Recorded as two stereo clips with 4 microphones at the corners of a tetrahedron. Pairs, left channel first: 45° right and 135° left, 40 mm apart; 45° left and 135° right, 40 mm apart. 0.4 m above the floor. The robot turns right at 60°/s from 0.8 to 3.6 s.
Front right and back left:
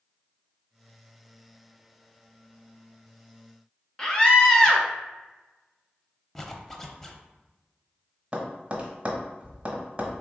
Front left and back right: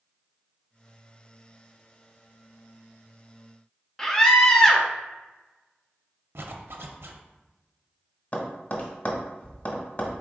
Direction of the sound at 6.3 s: 125° right.